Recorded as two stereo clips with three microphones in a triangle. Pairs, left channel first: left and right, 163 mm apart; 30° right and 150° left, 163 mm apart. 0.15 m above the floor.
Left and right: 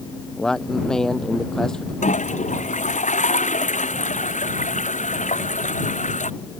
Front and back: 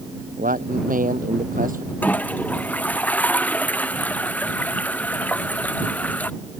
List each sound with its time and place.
0.4 s a man speaking: 175° left
2.0 s a toilet flushing: 50° left